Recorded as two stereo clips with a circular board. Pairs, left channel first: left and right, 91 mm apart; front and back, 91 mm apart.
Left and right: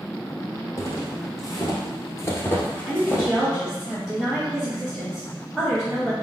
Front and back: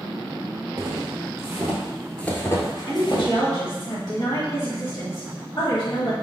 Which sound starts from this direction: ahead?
A woman speaking, at 2.9 s.